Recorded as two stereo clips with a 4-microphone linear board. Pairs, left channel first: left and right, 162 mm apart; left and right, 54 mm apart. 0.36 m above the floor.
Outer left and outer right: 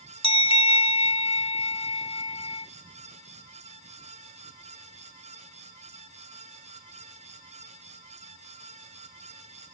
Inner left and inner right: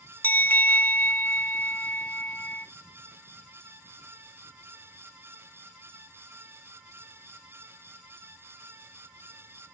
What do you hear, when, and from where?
0.2 s a bell: 35° left (ahead or behind), 0.6 m